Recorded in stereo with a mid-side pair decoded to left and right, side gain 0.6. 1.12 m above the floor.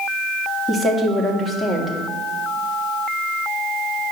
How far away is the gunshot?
No gunshot in this recording.